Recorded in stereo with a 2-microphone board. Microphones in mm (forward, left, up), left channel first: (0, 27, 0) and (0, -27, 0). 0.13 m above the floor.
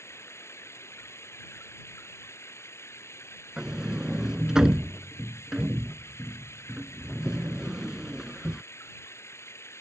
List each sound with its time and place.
0.0 s running water: 55° left (ahead or behind)
3.6 s a sliding door: 10° right (ahead or behind)